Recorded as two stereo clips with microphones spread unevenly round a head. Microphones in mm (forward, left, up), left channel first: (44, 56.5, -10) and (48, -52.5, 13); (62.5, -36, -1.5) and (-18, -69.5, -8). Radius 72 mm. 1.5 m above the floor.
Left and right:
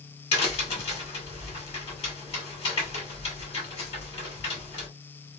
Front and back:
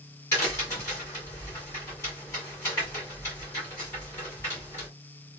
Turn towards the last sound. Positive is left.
turn(degrees=70)